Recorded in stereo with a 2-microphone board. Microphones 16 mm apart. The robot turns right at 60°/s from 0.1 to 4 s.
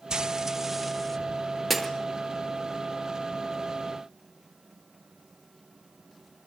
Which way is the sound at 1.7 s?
10° left (ahead or behind).